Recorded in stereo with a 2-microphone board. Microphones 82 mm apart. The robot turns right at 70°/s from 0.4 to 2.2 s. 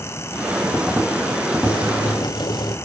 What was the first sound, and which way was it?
Boiling, 70° left.